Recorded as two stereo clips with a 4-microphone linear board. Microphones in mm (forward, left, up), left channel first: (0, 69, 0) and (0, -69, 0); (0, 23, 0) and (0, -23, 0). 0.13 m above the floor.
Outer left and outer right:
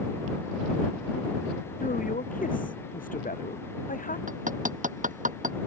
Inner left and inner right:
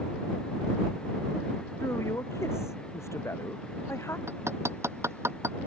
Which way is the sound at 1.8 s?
80° left.